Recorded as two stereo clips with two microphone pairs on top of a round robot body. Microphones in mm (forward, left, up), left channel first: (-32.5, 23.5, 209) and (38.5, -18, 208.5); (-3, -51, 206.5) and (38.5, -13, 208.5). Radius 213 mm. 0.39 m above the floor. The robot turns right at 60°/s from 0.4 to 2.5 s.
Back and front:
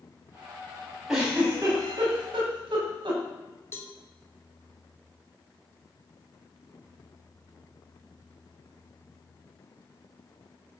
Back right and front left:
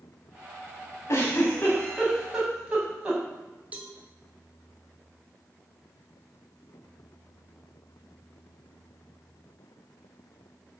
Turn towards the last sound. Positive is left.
turn(degrees=100)